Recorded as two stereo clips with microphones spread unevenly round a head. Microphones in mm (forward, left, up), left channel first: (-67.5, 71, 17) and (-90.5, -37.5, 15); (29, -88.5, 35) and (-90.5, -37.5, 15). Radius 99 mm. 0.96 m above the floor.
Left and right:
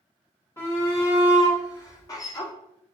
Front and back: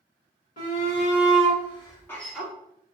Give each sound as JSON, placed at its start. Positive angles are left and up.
{"t": 0.6, "sound": "a shout", "azimuth_deg": 5, "distance_m": 1.6}